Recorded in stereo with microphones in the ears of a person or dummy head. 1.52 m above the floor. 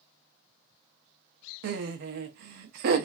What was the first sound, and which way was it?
Laughter, 55° right (ahead or behind).